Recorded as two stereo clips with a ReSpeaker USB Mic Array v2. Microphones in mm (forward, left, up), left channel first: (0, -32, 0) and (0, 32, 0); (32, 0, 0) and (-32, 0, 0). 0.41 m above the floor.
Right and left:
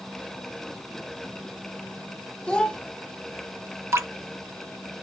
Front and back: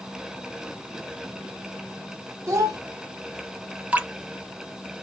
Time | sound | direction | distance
2.5 | a child speaking | 160° right | 0.8 m
3.9 | dripping | 120° left | 0.6 m